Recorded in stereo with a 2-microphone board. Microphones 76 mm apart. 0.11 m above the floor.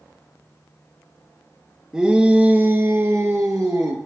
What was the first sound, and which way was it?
A shout, 10° right (ahead or behind).